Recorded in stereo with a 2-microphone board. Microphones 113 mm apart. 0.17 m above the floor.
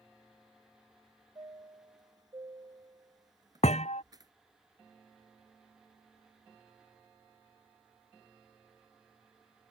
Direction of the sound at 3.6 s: 80° left.